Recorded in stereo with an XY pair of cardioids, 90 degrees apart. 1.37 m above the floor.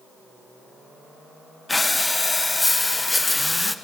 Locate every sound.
1.7 s breathing: 20° left, 1.1 m